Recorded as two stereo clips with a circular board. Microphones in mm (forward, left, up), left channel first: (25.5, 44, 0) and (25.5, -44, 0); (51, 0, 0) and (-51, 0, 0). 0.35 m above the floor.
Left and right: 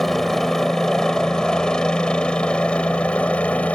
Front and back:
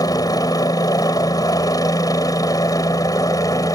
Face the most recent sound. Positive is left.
turn(degrees=25)